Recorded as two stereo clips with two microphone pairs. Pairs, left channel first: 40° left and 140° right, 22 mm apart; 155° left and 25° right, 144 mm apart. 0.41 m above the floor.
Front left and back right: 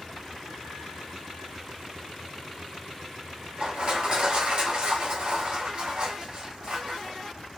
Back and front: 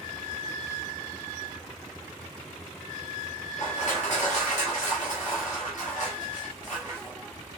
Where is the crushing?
170° right, 1.3 m.